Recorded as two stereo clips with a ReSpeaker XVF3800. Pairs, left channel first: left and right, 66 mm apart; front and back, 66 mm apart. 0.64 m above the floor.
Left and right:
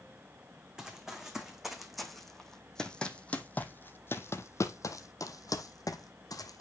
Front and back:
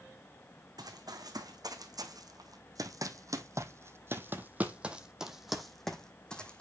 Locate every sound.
0.8 s running footsteps: 170° right, 2 m; by 6.6 s 75° left, 1.6 m